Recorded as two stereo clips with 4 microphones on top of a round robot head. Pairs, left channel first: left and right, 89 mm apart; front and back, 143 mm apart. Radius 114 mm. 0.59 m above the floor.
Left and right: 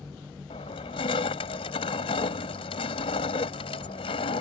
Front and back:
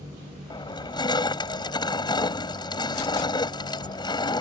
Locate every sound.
0.5 s crushing: 60° left